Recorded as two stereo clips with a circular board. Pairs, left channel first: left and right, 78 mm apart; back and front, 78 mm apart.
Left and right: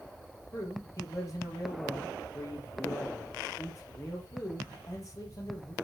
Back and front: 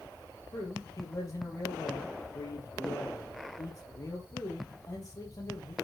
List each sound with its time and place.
0.5 s a man speaking: 135° left, 4.5 m